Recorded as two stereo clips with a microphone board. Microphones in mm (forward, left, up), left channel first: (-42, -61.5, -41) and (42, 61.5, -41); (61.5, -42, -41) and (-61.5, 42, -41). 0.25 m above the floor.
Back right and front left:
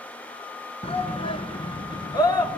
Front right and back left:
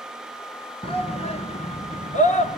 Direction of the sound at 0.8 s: 80° right.